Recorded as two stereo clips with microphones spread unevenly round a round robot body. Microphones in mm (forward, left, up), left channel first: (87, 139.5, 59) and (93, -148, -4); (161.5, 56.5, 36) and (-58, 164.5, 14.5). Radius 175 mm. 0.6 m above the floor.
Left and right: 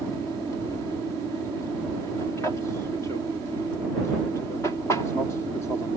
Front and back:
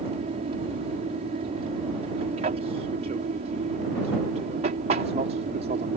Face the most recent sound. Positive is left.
turn(degrees=-175)